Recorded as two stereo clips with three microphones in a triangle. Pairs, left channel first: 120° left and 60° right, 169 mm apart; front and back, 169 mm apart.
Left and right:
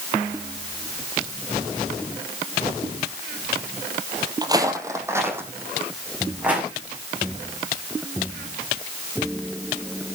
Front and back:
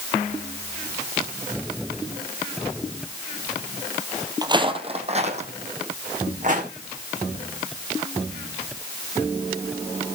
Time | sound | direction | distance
4.4 | footsteps | 120° right | 1.7 m